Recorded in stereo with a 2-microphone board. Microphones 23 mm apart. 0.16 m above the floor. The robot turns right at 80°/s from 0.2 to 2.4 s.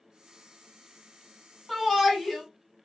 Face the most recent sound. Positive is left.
turn(degrees=15)  # may be behind; listen again after turning